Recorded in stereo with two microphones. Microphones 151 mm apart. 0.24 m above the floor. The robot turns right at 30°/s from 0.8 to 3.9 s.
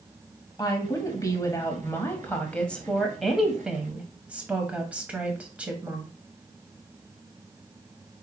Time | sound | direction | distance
0.6 | a woman speaking | 25° left (ahead or behind) | 1.0 m